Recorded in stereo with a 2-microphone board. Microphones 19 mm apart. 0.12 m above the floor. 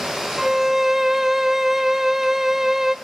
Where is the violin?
20° right (ahead or behind), 0.5 m.